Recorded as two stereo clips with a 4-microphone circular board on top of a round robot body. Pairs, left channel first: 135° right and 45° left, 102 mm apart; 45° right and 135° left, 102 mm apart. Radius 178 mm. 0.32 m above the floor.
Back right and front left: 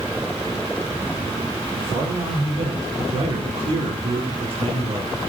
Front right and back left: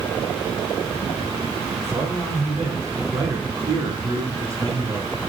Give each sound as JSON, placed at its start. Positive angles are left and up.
{"t": 1.8, "sound": "a man speaking", "azimuth_deg": 80, "distance_m": 7.5}